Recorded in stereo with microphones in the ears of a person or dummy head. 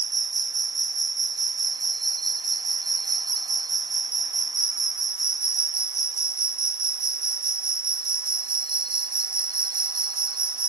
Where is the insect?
20° right (ahead or behind).